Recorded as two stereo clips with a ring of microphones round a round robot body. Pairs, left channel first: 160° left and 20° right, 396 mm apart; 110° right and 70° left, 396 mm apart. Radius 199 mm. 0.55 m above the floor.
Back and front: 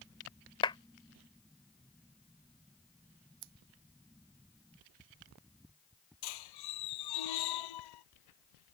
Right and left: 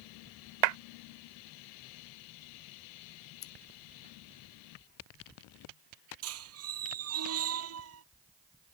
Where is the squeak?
125° left.